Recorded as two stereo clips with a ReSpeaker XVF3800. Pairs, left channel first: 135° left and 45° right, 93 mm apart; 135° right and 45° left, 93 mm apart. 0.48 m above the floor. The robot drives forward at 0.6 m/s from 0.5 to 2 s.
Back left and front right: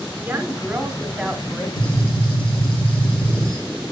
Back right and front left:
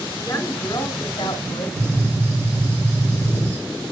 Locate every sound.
0.2 s a woman speaking: 95° right, 1.1 m; by 1.7 s 135° right, 1.3 m
1.8 s a gunshot: 105° left, 3 m; by 3.6 s 110° left, 3.5 m